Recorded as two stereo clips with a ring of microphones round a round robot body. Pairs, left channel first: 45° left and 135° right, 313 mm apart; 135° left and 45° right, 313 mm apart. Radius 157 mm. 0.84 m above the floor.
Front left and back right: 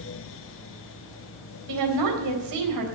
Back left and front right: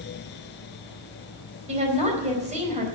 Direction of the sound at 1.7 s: 115° right.